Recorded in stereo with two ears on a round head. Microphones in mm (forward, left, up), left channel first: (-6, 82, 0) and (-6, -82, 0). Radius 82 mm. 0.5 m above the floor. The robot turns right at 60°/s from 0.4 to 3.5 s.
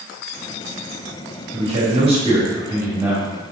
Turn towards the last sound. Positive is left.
turn(degrees=10)